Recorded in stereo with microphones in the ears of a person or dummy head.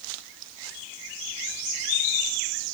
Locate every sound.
Only background noise.